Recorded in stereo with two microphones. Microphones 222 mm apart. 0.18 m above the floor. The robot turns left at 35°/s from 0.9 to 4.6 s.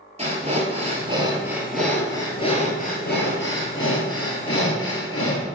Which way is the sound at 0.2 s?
150° right.